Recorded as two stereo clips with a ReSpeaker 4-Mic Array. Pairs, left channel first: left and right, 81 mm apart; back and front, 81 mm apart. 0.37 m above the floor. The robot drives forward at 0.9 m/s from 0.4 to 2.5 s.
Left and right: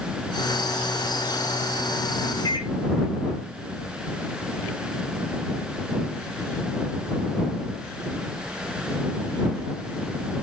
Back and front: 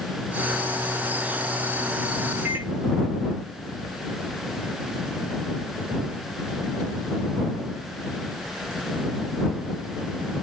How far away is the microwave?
About 3 m.